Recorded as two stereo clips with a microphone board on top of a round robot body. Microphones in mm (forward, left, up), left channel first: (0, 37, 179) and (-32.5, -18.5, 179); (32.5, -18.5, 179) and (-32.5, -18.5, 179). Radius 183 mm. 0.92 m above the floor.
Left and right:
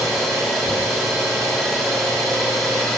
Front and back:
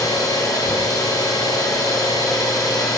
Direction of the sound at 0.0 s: 30° right.